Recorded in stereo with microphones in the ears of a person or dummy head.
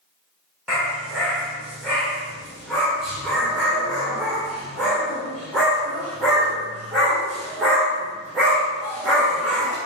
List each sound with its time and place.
0.7 s a dog barking: centre (ahead or behind), 0.8 m